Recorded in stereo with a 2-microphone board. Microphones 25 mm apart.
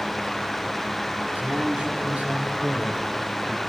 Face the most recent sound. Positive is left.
turn(degrees=-40)  # may be behind; listen again after turning